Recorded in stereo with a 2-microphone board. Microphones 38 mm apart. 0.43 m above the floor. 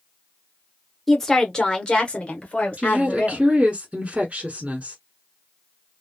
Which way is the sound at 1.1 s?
5° left (ahead or behind).